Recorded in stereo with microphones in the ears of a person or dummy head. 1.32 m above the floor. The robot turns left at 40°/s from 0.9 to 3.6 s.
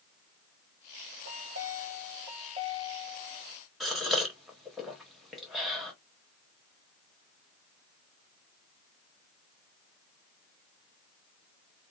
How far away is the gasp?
About 1.2 m.